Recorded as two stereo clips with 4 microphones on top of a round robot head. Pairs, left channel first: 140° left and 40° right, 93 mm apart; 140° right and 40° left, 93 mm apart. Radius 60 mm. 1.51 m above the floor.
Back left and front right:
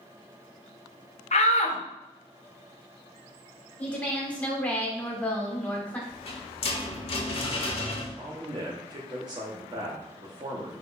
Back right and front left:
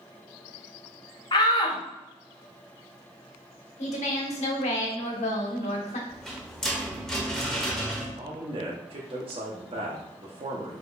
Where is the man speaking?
10° left, 1.0 m.